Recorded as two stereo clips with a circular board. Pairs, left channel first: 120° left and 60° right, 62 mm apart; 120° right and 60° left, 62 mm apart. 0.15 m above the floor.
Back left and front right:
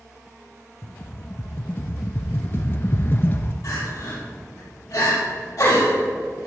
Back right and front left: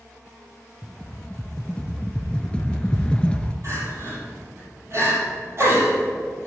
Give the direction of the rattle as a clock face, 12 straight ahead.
6 o'clock.